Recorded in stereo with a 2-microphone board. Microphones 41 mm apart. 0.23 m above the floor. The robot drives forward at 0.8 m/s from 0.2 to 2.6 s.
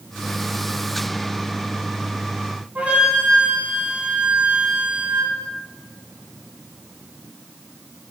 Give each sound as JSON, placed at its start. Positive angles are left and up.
{"t": 2.8, "sound": "a flute", "side_deg": -25, "distance_m": 0.8}